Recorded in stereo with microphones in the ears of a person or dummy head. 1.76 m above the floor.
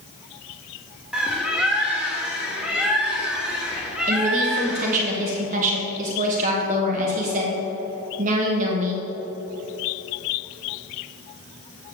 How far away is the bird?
About 1.6 m.